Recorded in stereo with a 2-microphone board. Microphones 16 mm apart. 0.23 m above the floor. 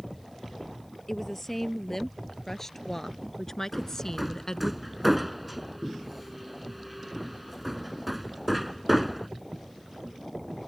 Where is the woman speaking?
15° left (ahead or behind); by 4.7 s 35° left (ahead or behind).